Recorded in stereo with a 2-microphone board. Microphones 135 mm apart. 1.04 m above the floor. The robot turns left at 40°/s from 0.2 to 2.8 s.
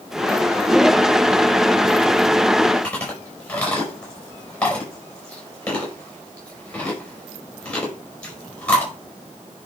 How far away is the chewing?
About 5 m.